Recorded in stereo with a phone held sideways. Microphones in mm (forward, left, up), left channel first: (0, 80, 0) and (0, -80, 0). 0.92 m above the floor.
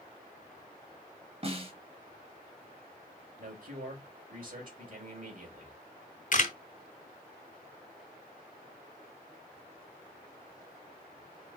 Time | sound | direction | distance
1.4 | a snare drum | 40° right (ahead or behind) | 1.4 m
3.4 | a man speaking | 55° right (ahead or behind) | 3.5 m
6.3 | a camera shutter | 55° left (ahead or behind) | 0.9 m